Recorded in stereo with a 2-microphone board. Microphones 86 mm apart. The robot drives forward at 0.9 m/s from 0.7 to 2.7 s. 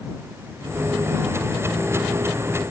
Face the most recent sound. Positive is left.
No sound to turn to.